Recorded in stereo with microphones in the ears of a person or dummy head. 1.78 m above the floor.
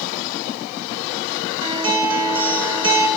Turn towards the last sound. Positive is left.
turn(degrees=-20)  # may be behind; listen again after turning